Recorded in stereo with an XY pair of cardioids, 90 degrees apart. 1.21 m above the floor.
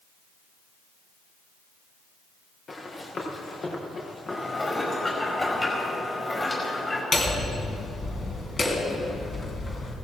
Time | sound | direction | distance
2.7 | running footsteps | 50° left | 5 m
4.3 | dishes clattering | 25° left | 5 m
7.1 | hammering | 40° left | 3 m